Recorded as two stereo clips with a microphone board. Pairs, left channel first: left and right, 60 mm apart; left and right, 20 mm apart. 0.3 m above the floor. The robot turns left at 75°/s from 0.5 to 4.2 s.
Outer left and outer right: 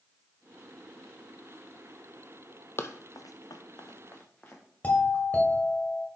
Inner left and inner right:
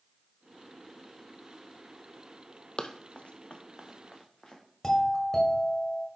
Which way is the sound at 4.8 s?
25° left (ahead or behind).